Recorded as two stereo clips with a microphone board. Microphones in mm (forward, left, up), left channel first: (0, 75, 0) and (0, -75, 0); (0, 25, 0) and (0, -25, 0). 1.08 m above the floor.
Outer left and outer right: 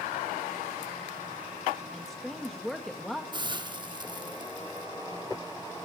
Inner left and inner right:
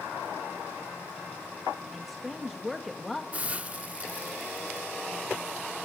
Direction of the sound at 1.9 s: Centre (ahead or behind).